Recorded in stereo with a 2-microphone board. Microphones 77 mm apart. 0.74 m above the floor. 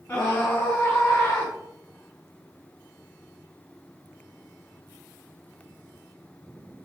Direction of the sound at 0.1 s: 30° left (ahead or behind).